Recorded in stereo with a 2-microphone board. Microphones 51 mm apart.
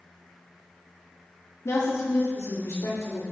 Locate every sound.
1.6 s a woman speaking: 65° left (ahead or behind), 1.7 m